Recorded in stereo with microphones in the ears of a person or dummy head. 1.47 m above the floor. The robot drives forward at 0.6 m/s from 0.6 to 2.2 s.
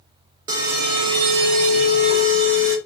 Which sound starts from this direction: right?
An alarm, at 0.5 s.